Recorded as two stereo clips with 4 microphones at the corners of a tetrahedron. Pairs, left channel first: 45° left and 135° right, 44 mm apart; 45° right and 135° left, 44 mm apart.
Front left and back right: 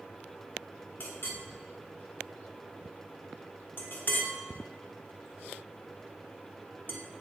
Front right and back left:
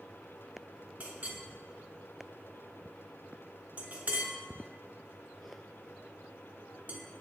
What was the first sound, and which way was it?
A clink, 85° left.